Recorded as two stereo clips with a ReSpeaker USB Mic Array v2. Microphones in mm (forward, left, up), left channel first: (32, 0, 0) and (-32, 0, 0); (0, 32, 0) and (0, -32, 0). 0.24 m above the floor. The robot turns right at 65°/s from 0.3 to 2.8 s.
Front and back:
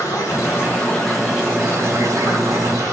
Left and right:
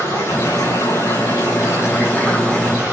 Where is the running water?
35° left, 9.5 m; by 2.9 s 160° right, 9.5 m.